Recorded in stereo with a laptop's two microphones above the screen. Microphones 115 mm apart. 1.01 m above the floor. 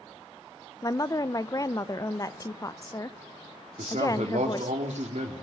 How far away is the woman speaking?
About 0.6 m.